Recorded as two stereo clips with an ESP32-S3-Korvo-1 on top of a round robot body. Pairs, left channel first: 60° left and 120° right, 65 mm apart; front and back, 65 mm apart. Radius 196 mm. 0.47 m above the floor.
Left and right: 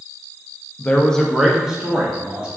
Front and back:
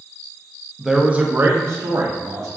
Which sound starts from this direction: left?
A man speaking, at 0.8 s.